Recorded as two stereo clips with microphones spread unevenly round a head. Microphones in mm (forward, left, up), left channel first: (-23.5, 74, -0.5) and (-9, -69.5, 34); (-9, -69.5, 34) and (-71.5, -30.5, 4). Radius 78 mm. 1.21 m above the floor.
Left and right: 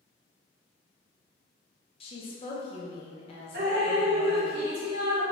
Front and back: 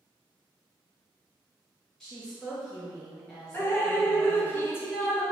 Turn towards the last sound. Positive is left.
turn(degrees=-100)